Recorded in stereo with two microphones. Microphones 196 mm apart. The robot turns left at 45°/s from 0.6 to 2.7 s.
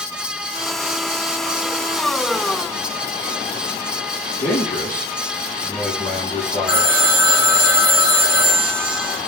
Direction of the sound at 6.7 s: 70° left (ahead or behind).